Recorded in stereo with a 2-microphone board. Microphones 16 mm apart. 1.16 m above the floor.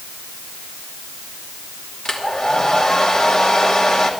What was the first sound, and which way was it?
A hair dryer, 60° left (ahead or behind).